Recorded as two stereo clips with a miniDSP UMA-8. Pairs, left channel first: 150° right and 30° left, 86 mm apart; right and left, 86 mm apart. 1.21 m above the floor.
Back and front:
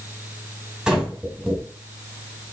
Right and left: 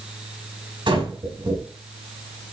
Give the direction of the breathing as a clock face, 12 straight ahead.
8 o'clock.